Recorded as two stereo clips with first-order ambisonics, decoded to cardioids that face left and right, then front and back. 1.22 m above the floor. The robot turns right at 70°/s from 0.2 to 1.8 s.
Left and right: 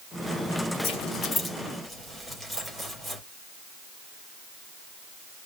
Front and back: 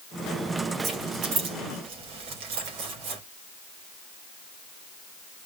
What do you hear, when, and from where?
0.8 s keys jangling: 115° left, 3.5 m; by 3.2 s straight behind, 3.5 m